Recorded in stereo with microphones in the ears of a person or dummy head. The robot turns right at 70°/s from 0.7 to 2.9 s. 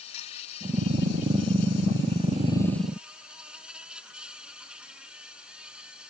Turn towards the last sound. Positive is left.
turn(degrees=-170)